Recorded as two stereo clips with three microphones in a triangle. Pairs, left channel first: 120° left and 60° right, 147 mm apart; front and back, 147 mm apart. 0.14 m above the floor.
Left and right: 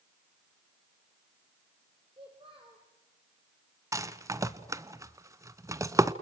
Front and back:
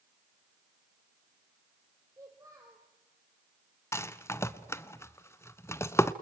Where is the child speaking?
110° right, 3 m.